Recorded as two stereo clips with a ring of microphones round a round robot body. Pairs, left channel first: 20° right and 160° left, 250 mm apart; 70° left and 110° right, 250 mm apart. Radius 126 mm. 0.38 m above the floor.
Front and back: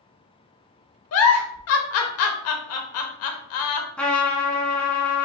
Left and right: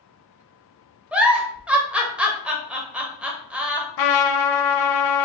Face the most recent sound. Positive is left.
turn(degrees=65)